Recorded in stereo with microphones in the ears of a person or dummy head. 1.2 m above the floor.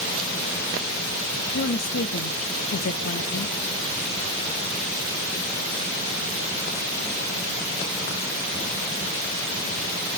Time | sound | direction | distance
1.5 | a woman speaking | 60° left (ahead or behind) | 0.9 m